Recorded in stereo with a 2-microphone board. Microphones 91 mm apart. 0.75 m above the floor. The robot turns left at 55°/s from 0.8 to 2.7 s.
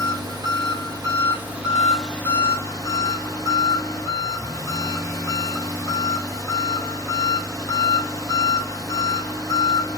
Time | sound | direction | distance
0.0 | an engine running | 120° right | 1.6 m